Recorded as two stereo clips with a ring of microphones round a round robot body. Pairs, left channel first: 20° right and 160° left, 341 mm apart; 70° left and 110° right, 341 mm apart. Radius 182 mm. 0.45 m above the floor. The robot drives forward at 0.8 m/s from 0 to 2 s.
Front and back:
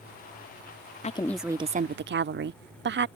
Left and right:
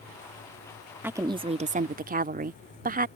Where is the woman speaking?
40° right; by 3.1 s 165° right.